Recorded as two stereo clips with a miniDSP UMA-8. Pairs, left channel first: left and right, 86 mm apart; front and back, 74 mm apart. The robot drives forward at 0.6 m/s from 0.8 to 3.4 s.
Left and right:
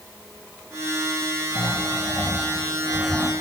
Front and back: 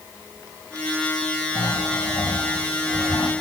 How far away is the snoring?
About 7.5 m.